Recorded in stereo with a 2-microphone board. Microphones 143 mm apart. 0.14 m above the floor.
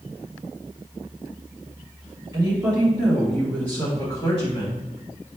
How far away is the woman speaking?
About 1.8 m.